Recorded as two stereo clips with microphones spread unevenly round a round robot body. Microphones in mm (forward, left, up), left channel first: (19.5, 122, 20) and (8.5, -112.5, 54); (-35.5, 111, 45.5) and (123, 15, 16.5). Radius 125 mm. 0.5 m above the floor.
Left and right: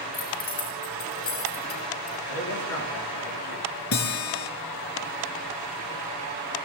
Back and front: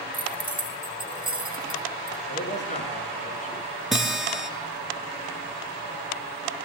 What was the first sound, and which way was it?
Keys jangling, 35° left.